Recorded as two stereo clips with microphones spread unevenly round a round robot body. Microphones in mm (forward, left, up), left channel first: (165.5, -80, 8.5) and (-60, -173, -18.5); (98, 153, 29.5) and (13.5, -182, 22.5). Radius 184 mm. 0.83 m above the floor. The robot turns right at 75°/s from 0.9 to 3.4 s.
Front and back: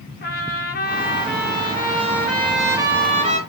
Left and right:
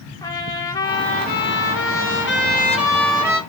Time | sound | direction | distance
0.2 | a trumpet | straight ahead | 1.1 m